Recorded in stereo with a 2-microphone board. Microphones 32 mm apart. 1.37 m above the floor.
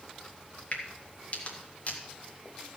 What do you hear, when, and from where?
0.7 s a crack: 50° left (ahead or behind), 2 m